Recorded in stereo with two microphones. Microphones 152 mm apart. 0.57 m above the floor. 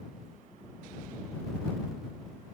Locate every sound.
Only background noise.